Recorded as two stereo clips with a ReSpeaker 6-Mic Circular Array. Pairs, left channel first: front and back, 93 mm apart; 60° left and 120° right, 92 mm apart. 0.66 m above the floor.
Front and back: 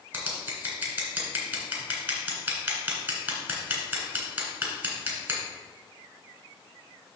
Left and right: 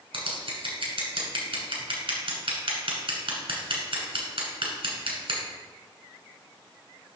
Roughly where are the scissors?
Behind right.